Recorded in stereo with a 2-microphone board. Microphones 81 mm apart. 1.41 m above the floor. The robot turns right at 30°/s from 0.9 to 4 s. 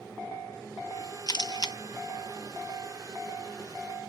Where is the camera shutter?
60° left (ahead or behind).